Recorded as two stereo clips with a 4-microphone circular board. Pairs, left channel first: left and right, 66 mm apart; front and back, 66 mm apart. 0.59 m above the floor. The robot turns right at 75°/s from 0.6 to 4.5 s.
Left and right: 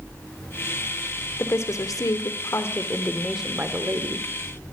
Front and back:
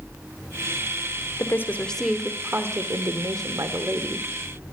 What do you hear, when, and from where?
1.4 s a woman speaking: 40° left, 1.3 m; by 4.3 s 105° right, 1.3 m